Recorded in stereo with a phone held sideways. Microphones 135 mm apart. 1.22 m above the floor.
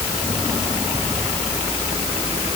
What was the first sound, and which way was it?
Only background noise.